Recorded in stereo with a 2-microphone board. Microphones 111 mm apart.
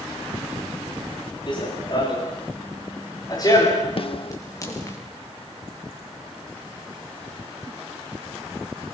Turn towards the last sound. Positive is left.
turn(degrees=50)  # may be behind; listen again after turning